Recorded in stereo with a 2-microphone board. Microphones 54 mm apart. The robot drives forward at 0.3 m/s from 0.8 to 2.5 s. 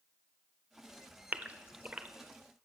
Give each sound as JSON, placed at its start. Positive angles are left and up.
{"t": 1.3, "sound": "a gasp", "side_deg": -30, "distance_m": 0.7}